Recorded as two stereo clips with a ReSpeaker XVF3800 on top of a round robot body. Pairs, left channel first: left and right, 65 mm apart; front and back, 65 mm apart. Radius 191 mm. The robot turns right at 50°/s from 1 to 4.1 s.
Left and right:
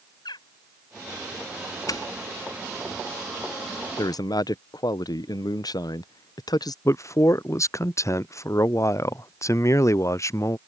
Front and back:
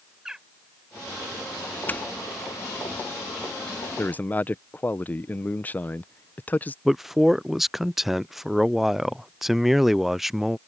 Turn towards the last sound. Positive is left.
turn(degrees=95)